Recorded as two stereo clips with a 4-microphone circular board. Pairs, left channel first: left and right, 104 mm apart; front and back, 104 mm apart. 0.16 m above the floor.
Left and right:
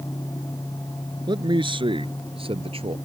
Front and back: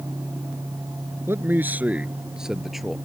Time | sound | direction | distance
1.3 | a man speaking | 120° right | ?